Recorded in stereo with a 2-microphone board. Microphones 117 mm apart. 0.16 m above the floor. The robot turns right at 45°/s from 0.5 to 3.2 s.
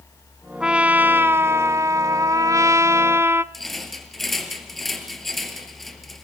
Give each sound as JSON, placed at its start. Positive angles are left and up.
{"t": 0.6, "sound": "a trumpet", "side_deg": -5, "distance_m": 0.7}
{"t": 3.5, "sound": "a rattle", "side_deg": 0, "distance_m": 3.0}